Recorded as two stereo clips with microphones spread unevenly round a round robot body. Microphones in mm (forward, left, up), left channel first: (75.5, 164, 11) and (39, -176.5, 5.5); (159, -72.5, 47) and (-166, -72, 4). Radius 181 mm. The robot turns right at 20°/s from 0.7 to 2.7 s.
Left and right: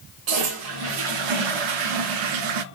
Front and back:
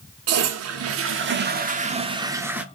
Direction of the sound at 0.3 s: 130° right.